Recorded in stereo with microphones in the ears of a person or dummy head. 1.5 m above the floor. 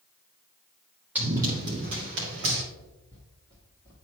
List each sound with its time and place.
1.1 s running footsteps: 5° right (ahead or behind), 2.5 m; by 2.6 s 50° right (ahead or behind), 3 m
2.8 s footsteps: 25° left (ahead or behind), 1.9 m